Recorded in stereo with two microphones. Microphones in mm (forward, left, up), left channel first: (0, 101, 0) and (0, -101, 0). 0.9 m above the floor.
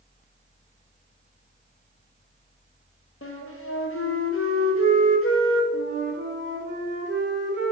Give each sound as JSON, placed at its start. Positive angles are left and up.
{"t": 3.2, "sound": "a flute", "side_deg": 80, "distance_m": 0.6}
{"t": 5.7, "sound": "a flute", "side_deg": -60, "distance_m": 0.9}